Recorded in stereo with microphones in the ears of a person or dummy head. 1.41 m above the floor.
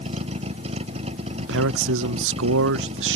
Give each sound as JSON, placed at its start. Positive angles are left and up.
{"t": 0.0, "sound": "a vehicle", "side_deg": -30}
{"t": 1.4, "sound": "a man speaking", "side_deg": -65}